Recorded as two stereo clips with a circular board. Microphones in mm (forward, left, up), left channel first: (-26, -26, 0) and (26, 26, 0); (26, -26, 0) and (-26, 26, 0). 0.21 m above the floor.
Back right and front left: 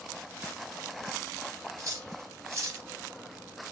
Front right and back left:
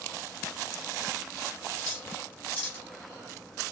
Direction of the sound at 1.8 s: 15° left.